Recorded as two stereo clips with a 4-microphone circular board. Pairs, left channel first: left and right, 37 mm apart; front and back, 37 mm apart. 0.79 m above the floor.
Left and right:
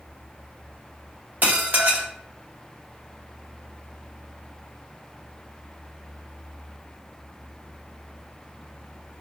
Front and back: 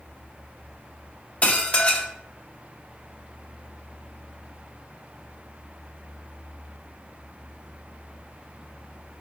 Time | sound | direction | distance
1.4 | dishes clattering | 50° right | 0.8 m